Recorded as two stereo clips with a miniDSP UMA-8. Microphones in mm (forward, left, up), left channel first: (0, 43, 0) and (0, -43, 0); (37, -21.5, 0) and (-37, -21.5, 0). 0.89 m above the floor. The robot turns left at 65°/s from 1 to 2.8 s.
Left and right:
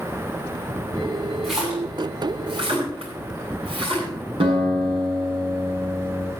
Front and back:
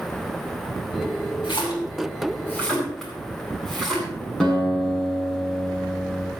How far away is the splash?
About 9 m.